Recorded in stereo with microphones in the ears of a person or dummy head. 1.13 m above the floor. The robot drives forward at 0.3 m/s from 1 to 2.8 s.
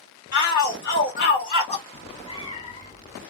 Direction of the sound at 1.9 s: 25° left (ahead or behind).